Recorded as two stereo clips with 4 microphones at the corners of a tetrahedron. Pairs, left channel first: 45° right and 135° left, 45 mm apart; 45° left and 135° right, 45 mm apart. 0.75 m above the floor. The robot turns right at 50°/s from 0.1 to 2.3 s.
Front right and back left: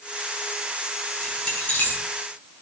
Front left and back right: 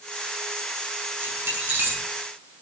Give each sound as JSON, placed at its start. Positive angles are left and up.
{"t": 1.2, "sound": "keys jangling", "azimuth_deg": -130, "distance_m": 7.5}